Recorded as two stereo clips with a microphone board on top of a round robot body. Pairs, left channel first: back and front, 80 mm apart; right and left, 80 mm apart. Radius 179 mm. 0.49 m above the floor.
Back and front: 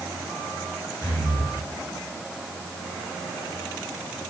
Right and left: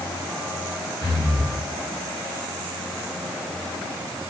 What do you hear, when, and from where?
1.0 s breathing: 135° right, 5.5 m